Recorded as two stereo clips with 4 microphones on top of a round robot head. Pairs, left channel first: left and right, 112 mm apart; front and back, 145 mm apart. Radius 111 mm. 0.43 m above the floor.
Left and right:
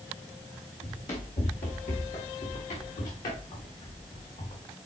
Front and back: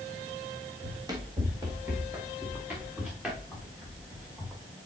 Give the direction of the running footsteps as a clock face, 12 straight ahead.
8 o'clock.